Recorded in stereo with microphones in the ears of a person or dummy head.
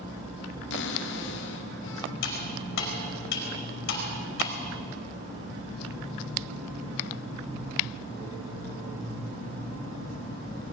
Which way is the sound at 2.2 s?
65° left (ahead or behind).